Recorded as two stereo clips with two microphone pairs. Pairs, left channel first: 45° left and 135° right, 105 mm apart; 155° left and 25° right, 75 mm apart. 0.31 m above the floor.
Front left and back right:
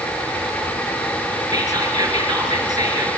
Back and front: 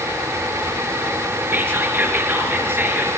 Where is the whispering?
85° right, 5 m.